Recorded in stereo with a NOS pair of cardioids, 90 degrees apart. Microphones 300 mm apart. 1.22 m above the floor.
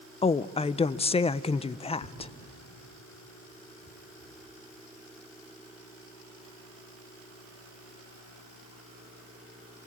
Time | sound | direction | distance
0.2 | a woman speaking | 20° left | 0.5 m
2.0 | tearing paper | 60° left | 3.5 m